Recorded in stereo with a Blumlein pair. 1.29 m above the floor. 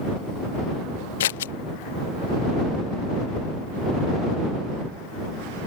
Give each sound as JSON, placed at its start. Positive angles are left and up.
{"t": 1.2, "sound": "scissors", "azimuth_deg": 60}